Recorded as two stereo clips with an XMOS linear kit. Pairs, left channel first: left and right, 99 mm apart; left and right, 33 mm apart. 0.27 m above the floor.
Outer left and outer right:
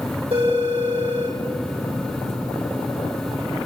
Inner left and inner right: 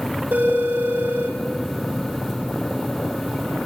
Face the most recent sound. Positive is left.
turn(degrees=-80)